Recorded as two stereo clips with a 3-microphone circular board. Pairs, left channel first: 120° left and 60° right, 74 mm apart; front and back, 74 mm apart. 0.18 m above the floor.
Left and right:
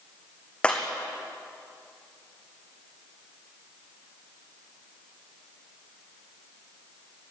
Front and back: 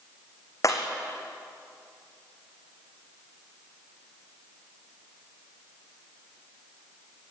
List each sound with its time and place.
0.6 s breaking glass: 45° left, 3.5 m